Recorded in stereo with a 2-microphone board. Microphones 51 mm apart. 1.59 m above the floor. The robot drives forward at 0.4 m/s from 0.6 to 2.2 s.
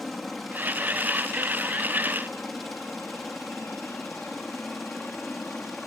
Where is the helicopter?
Centre (ahead or behind); by 5.9 s 5° left (ahead or behind).